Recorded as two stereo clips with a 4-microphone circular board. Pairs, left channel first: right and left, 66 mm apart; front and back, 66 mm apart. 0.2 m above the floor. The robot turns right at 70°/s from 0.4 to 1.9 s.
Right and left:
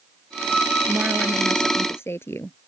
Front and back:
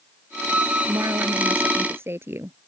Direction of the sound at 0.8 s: 155° left.